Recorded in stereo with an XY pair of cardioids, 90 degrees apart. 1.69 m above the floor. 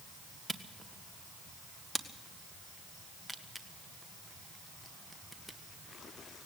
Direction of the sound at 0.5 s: Straight ahead.